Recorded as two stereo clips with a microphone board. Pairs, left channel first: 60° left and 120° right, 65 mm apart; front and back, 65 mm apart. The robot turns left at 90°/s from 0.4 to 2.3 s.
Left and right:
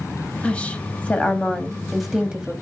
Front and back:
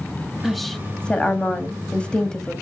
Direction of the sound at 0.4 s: 105° left.